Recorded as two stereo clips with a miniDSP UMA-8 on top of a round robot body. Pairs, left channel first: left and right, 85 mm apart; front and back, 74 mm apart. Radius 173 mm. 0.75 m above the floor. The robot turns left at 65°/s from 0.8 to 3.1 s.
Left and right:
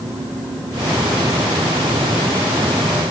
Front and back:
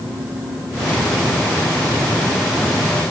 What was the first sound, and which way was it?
Only background noise.